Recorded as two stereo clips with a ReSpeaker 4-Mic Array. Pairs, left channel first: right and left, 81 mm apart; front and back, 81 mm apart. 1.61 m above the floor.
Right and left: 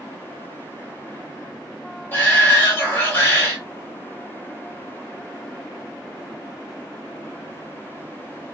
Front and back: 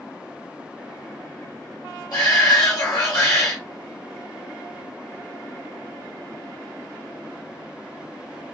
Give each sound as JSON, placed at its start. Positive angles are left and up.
{"t": 2.1, "sound": "a shout", "azimuth_deg": -30, "distance_m": 1.2}